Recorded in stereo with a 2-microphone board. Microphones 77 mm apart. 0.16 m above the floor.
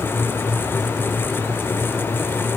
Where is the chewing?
No chewing in this recording.